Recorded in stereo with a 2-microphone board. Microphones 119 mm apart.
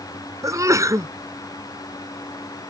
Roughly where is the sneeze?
Right.